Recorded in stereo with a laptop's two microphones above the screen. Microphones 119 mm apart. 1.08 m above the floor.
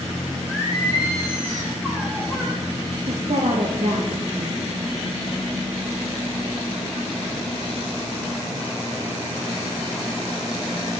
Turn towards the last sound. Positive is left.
turn(degrees=-65)  # may be behind; listen again after turning